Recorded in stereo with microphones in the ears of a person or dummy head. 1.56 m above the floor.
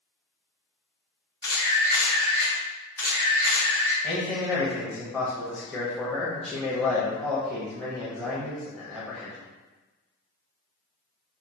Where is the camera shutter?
5° left (ahead or behind), 1.5 m.